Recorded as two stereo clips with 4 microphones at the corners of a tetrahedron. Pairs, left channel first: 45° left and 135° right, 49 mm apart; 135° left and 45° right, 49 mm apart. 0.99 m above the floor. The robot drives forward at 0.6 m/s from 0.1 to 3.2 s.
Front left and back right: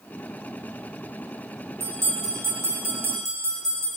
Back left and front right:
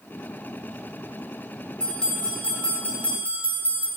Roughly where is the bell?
Behind right.